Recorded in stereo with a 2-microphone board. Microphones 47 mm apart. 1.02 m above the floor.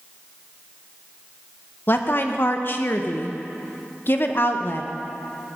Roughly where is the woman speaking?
Left.